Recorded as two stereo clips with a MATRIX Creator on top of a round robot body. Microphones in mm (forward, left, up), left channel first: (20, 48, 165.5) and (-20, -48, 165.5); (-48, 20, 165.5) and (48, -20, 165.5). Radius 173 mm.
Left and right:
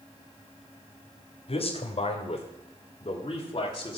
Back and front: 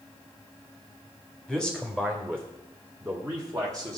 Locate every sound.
1.5 s a man speaking: 65° left, 2 m; by 4.0 s 30° left, 2.5 m